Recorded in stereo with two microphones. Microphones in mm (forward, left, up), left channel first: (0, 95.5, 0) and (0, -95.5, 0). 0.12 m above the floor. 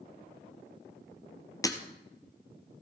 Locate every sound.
1.6 s breaking glass: 20° left (ahead or behind), 1.4 m